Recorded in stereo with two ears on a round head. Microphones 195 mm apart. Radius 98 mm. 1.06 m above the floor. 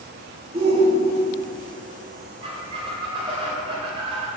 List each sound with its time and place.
0.5 s a shout: 25° right (ahead or behind), 1.8 m
2.4 s a squeak: 25° right (ahead or behind), 2.5 m